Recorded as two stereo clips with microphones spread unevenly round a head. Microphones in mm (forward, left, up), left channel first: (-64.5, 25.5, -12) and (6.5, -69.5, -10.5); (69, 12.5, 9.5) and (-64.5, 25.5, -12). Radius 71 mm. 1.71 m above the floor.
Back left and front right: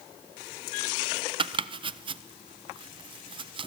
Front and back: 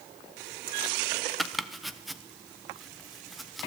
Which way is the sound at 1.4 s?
90° right.